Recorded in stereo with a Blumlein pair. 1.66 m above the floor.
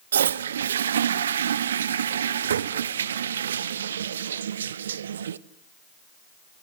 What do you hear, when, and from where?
0.1 s a toilet flushing: 65° right, 0.8 m